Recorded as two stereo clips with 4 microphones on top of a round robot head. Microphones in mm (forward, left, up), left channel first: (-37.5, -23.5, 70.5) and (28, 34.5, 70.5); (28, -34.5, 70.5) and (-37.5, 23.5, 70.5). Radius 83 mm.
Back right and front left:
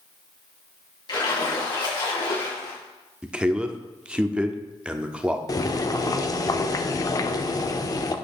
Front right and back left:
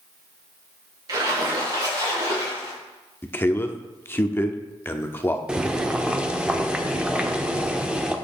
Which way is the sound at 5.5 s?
145° right.